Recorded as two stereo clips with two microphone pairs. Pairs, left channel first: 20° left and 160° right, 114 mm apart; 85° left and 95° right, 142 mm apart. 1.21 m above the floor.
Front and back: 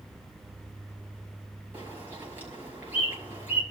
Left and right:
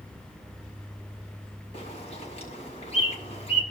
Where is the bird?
130° left, 6.5 m.